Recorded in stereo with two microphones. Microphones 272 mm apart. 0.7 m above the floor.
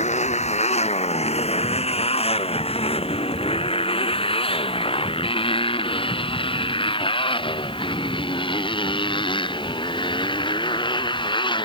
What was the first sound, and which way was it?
A motorcycle, 25° left (ahead or behind).